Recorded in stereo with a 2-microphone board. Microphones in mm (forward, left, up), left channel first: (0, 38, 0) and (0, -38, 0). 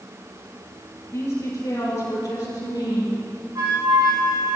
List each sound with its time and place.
1.1 s a woman speaking: 40° left (ahead or behind), 4 m; by 3.1 s 65° left (ahead or behind), 4 m
3.5 s a flute: 55° right (ahead or behind), 4 m